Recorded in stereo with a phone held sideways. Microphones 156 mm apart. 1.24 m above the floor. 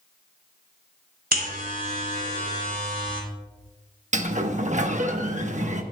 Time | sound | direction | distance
1.3 | a buzzer | 65° right (ahead or behind) | 3 m
4.1 | a sliding door | 50° right (ahead or behind) | 1.0 m